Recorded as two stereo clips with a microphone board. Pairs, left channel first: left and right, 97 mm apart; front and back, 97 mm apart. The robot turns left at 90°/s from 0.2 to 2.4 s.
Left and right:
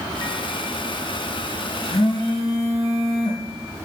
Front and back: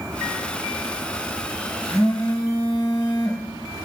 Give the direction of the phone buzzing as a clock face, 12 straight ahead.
9 o'clock.